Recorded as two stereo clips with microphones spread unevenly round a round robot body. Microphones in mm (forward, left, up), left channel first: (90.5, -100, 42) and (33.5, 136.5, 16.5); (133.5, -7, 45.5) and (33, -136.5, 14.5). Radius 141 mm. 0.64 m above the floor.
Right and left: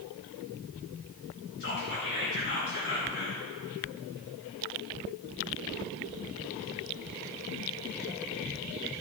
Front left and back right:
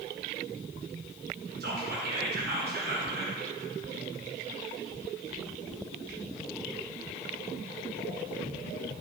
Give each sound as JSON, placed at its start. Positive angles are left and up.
{"t": 1.6, "sound": "whispering", "azimuth_deg": -130, "distance_m": 4.0}